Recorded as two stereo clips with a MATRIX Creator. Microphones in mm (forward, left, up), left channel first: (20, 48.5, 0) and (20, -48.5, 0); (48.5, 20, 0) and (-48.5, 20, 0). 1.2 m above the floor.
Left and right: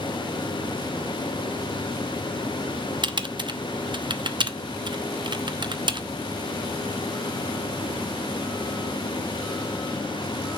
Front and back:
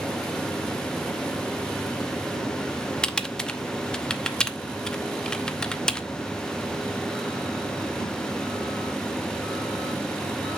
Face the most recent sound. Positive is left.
turn(degrees=-80)